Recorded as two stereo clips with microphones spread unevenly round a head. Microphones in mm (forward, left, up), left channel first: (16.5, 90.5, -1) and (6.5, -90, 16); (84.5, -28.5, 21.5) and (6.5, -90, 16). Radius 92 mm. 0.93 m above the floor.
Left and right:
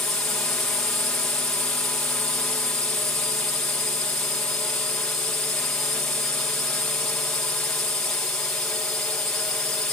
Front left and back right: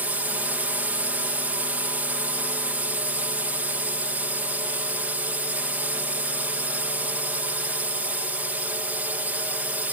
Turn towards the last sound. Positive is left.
turn(degrees=160)